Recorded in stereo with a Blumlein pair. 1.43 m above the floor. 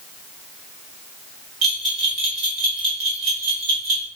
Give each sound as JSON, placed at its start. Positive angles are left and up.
{"t": 1.6, "sound": "a bell", "azimuth_deg": -25, "distance_m": 1.7}